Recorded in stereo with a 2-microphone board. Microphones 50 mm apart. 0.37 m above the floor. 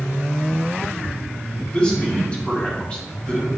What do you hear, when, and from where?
1.7 s a man speaking: 20° left (ahead or behind), 3 m